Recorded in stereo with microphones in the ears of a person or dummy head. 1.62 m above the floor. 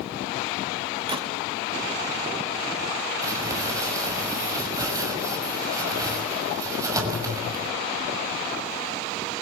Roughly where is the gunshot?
Right.